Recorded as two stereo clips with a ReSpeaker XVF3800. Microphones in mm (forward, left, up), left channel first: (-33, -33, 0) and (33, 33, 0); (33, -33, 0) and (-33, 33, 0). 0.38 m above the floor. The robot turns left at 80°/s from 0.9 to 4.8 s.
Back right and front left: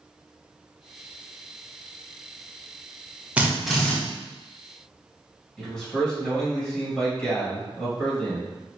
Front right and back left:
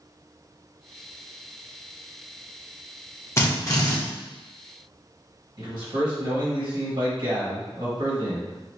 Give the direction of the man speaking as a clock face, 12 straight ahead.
7 o'clock.